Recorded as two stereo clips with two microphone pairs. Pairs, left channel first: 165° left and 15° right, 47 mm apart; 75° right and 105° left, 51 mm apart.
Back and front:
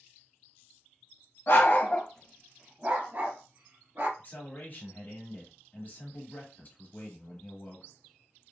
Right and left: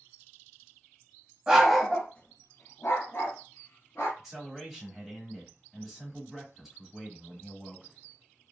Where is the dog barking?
Straight behind, 0.7 m; by 4.1 s 40° right, 1.4 m.